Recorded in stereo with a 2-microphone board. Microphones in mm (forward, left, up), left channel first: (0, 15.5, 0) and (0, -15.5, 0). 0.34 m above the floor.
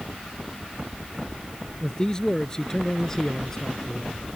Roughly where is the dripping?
I don't hear dripping.